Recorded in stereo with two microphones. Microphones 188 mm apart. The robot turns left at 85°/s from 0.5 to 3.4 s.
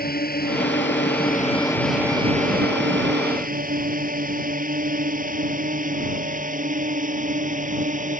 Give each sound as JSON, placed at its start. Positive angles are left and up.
{"t": 0.0, "sound": "a drone", "side_deg": 50}